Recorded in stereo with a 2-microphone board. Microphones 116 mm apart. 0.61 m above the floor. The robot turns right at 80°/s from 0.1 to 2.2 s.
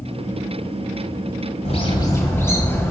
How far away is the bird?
About 1.8 m.